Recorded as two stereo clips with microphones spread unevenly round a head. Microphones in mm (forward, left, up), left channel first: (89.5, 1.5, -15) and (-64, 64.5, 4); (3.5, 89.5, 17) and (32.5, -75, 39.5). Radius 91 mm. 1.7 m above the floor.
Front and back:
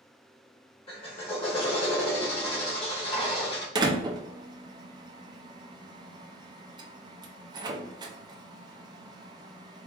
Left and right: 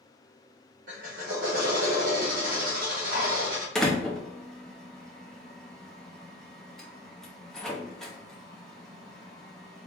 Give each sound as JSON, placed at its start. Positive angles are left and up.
{"t": 0.9, "sound": "a drill", "azimuth_deg": -80, "distance_m": 1.2}
{"t": 3.8, "sound": "a door slam", "azimuth_deg": -165, "distance_m": 0.5}